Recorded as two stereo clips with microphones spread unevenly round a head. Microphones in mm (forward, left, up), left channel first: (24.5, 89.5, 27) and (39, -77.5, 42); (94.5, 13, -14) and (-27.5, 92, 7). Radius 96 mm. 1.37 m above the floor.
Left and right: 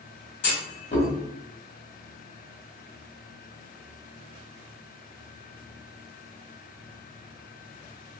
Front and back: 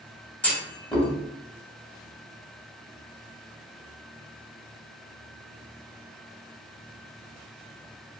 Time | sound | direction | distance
0.4 | a clunk | 55° left | 1.3 m